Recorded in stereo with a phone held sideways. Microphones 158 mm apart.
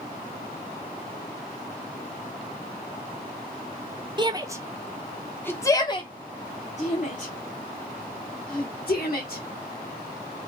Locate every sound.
4.2 s a shout: 30° right (ahead or behind), 1.0 m; by 9.4 s 70° left (ahead or behind), 2.5 m